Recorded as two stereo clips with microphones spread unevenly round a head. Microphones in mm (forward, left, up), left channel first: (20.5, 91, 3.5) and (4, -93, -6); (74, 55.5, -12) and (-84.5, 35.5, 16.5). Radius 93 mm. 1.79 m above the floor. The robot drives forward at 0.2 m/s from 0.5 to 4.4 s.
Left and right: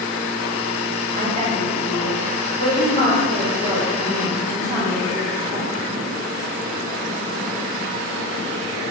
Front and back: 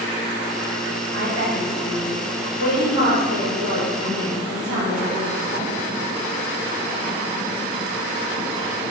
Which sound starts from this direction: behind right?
A woman speaking, at 1.1 s.